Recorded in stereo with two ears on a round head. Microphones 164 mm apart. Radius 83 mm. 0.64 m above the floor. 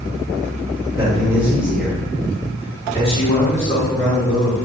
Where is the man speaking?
15° right (ahead or behind), 1.8 m; by 4.6 s 60° left (ahead or behind), 1.7 m.